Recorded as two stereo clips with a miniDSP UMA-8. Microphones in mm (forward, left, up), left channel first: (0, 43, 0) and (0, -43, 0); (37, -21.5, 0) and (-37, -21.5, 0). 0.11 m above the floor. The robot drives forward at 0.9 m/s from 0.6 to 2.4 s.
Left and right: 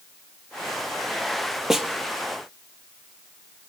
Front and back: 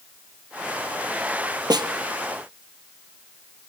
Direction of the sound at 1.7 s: 175° right.